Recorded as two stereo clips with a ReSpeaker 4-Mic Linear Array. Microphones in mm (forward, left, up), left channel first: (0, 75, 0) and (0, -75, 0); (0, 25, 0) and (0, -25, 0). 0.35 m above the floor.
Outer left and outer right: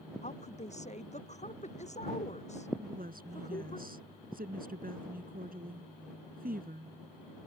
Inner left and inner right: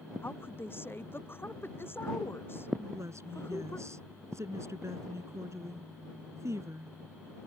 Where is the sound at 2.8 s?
75° right (ahead or behind).